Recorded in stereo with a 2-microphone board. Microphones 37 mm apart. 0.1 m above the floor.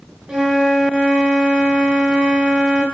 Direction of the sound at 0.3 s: 15° right (ahead or behind).